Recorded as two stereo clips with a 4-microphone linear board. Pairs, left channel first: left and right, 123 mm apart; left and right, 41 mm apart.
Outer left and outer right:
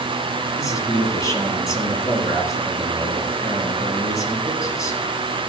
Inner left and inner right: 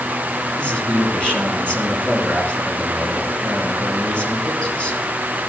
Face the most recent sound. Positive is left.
turn(degrees=25)  # may be behind; listen again after turning